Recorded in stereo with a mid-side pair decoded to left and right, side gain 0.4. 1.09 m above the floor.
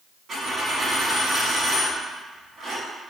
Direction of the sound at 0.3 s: 60° right.